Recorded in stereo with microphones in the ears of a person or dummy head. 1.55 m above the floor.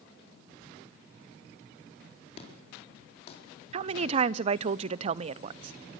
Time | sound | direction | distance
2.4 | an explosion | 40° left (ahead or behind) | 4.5 m
3.7 | a woman speaking | 35° right (ahead or behind) | 0.5 m